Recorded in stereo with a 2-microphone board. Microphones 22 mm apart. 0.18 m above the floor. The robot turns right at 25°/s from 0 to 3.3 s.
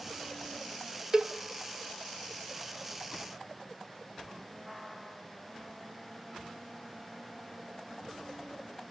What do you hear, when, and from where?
1.1 s a cowbell: 30° right (ahead or behind), 0.6 m; by 1.3 s 35° right (ahead or behind), 0.6 m